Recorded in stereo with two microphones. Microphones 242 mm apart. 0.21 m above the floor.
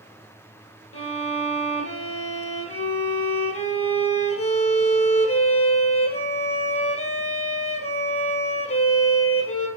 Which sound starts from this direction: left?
A violin, at 0.9 s.